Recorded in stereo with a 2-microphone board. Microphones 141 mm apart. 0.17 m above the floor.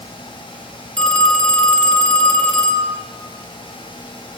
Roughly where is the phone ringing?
Centre.